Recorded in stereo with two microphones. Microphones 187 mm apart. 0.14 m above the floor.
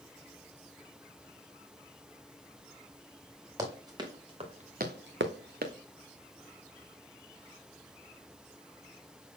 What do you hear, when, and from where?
3.6 s running footsteps: 20° right (ahead or behind), 2.5 m; by 5.7 s 45° right (ahead or behind), 1.0 m